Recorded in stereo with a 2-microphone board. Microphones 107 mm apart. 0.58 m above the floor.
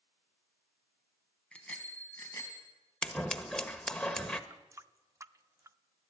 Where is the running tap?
30° right (ahead or behind), 0.5 m.